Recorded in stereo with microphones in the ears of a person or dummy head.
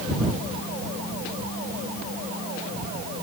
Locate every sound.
Only background noise.